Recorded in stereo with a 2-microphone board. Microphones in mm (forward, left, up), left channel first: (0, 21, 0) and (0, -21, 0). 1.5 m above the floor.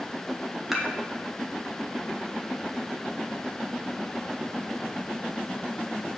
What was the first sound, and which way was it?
Dishes clattering, 5° right (ahead or behind).